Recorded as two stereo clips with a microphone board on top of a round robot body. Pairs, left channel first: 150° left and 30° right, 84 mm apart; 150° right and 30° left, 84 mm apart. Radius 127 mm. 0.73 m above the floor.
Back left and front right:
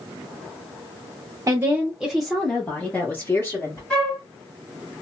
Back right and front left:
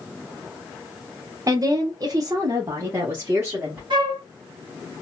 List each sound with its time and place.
1.5 s a woman speaking: 5° left, 0.8 m; by 3.8 s 100° left, 1.5 m
3.9 s a flute: 70° left, 1.4 m